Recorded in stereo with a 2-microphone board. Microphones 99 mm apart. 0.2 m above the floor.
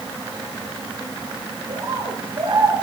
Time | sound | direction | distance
1.7 | a bird | 60° right (ahead or behind) | 2.5 m